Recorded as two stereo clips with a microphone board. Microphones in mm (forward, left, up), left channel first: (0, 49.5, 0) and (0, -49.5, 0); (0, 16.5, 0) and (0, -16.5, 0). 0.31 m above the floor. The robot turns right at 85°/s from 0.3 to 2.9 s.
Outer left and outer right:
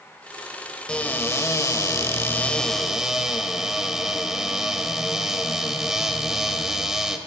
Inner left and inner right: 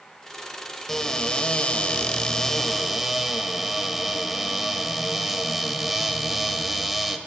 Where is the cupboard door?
20° left, 1.0 m; by 7.2 s 170° right, 1.0 m.